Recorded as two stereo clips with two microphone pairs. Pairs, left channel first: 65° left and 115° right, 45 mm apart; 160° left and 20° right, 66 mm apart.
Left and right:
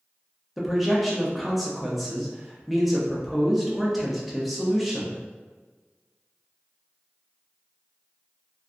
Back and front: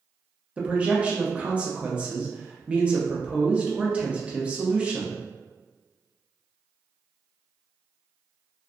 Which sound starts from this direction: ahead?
A man speaking, at 0.6 s.